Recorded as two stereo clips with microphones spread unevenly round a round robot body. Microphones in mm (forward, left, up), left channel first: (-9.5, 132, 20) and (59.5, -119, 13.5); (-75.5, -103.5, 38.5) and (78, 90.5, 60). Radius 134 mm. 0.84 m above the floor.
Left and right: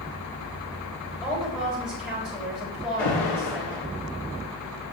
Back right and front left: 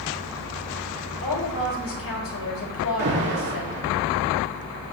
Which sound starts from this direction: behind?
A woman speaking, at 1.2 s.